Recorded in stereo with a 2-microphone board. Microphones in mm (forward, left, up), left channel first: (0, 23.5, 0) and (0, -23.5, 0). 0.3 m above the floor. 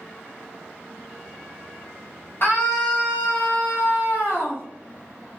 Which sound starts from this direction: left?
A scream, at 2.4 s.